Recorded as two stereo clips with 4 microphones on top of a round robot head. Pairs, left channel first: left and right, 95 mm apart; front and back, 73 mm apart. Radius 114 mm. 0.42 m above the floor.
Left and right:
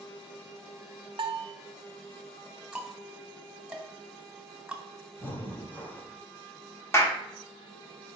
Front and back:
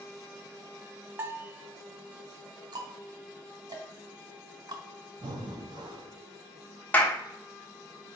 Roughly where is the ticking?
Behind.